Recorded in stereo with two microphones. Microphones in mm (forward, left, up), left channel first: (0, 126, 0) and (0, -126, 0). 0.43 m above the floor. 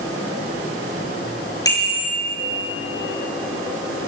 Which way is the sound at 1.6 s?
15° left (ahead or behind).